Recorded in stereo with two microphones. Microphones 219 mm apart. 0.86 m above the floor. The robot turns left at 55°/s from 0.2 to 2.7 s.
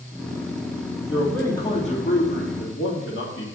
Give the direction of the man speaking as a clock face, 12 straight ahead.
6 o'clock.